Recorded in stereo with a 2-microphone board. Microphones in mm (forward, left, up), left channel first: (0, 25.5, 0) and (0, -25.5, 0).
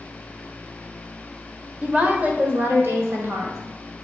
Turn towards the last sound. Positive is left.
turn(degrees=-60)  # may be behind; listen again after turning